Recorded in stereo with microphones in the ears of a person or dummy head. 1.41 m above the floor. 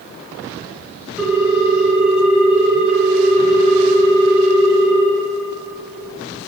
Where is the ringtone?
Centre (ahead or behind), 3.5 m.